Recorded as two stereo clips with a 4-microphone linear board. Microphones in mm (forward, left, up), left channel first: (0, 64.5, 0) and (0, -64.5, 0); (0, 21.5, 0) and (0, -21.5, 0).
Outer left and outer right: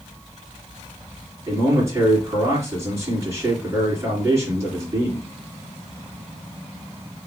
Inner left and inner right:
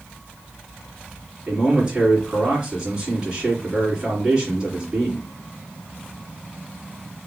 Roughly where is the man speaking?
Right.